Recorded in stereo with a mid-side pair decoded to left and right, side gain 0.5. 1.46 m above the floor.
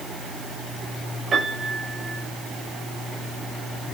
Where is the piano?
40° right, 8.5 m.